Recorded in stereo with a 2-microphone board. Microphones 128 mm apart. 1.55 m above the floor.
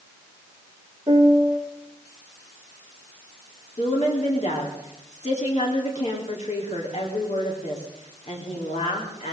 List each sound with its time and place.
1.1 s a piano: 35° right (ahead or behind), 2 m
3.8 s a woman speaking: 65° left (ahead or behind), 3.5 m